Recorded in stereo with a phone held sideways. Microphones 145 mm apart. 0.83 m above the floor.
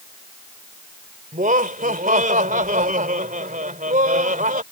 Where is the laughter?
70° right (ahead or behind).